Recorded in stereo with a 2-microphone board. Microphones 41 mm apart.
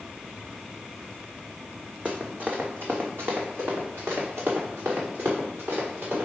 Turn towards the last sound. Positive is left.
turn(degrees=-75)  # may be behind; listen again after turning